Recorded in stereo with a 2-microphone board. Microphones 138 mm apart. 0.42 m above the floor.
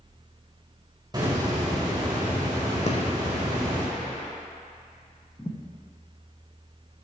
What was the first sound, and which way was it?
A hiss, 30° right (ahead or behind).